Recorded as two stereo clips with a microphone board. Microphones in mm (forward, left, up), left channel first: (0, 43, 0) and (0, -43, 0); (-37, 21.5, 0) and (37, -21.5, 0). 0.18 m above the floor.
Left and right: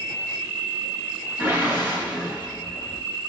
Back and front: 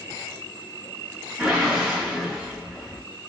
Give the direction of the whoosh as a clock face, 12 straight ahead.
4 o'clock.